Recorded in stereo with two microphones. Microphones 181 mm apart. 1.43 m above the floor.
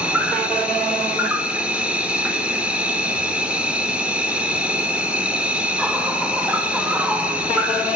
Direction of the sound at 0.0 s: 5° right (ahead or behind).